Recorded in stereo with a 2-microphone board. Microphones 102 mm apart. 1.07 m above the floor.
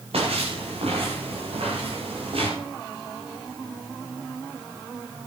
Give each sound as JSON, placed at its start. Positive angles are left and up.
{"t": 0.1, "sound": "footsteps", "side_deg": -75, "distance_m": 8.5}